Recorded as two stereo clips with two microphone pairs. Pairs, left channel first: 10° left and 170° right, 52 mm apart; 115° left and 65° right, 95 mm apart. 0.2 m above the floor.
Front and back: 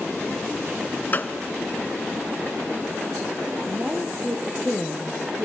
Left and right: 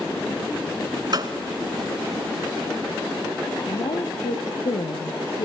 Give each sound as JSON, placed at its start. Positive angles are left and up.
{"t": 1.1, "sound": "a gunshot", "azimuth_deg": -40, "distance_m": 1.6}
{"t": 3.7, "sound": "a woman speaking", "azimuth_deg": 120, "distance_m": 4.0}